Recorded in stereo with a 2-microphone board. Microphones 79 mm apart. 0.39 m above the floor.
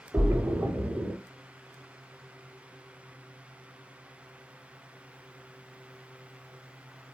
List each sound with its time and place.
0.1 s a splash: 25° right (ahead or behind), 0.9 m